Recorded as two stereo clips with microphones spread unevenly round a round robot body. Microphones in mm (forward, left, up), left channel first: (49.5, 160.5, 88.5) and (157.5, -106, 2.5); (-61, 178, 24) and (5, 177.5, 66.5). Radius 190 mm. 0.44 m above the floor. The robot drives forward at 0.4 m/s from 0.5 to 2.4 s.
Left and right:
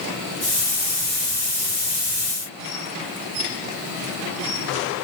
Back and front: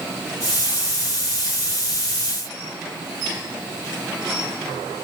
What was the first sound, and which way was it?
Only background noise.